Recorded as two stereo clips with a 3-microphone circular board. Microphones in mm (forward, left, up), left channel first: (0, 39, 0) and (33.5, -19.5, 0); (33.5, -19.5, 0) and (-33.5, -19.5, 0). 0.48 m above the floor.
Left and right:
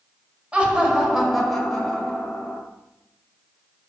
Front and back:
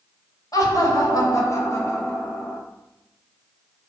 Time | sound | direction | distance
0.5 | laughter | 15° left | 1.8 m